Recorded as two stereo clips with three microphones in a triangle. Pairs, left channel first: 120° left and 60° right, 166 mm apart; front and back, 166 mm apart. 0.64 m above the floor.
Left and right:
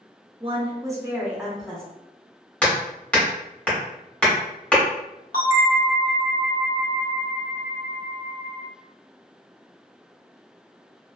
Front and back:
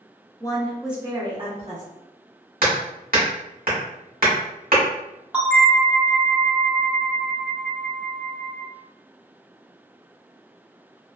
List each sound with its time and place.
0.4 s a woman speaking: 45° right, 0.7 m; by 1.8 s 155° right, 1.0 m
2.6 s hammering: 160° right, 1.1 m
5.3 s a bell: 100° left, 0.7 m